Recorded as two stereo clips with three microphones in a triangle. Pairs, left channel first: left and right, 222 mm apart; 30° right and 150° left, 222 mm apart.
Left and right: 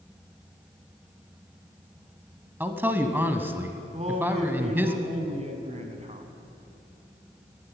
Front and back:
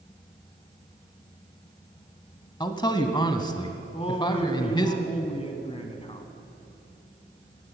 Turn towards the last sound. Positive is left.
turn(degrees=-65)